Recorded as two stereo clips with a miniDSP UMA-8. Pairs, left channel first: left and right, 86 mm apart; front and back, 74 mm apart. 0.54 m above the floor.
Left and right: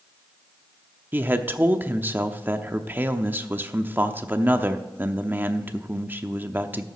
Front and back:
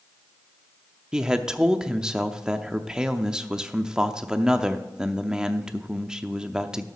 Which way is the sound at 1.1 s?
115° right.